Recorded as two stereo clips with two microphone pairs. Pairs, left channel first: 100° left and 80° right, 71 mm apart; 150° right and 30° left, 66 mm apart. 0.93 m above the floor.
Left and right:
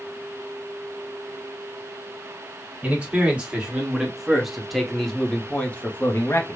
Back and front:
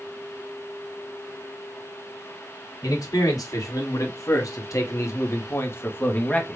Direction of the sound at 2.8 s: 150° right.